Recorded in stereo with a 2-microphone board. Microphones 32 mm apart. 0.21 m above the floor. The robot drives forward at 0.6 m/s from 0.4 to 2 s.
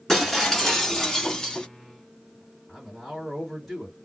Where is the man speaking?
5° left (ahead or behind), 1.7 m.